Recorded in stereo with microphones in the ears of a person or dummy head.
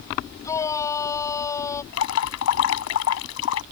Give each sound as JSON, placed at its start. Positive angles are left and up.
{"t": 0.4, "sound": "a shout", "side_deg": 20}
{"t": 1.9, "sound": "dripping", "side_deg": 75}